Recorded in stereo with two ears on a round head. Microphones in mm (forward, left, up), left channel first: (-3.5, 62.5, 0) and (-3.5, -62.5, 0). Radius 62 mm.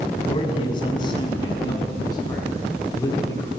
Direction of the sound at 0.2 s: 35° left (ahead or behind).